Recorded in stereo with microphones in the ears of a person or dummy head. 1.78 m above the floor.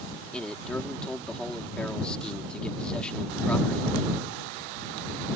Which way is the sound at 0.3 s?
5° left (ahead or behind).